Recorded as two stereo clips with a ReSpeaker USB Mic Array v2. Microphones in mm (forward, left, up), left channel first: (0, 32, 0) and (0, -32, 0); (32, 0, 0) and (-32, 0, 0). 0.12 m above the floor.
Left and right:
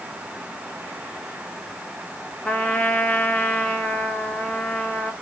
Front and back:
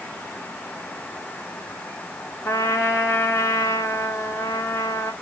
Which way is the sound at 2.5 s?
25° left.